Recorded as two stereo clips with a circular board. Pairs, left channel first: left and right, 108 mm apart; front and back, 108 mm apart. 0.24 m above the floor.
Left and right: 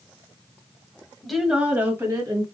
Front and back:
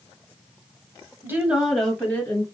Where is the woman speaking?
170° left, 1.2 m; by 2.5 s 50° right, 1.6 m.